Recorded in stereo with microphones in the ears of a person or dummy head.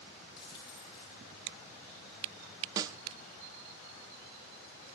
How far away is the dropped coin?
About 8.5 m.